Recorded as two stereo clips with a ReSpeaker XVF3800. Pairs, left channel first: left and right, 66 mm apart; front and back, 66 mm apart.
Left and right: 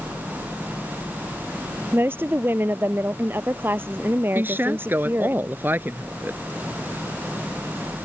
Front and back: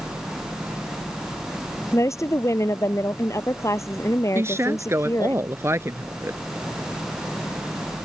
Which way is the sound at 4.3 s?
140° right.